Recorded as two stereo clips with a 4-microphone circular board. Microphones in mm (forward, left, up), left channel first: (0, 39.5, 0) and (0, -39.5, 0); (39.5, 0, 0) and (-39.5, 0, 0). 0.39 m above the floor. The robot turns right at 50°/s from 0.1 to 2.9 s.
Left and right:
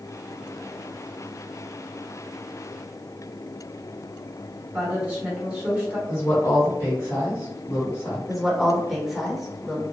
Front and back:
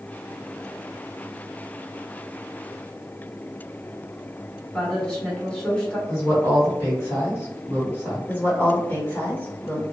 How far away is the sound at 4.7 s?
About 1.2 m.